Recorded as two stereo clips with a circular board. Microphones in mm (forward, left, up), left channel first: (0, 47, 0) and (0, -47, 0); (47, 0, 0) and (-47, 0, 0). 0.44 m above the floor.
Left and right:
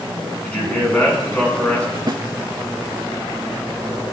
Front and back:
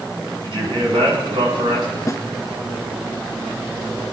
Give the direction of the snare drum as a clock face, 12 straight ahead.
2 o'clock.